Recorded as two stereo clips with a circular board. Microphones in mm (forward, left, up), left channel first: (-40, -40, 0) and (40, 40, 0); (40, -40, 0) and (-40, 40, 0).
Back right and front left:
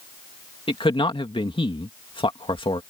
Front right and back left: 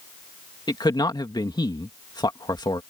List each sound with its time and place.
0.7 s a man speaking: 95° right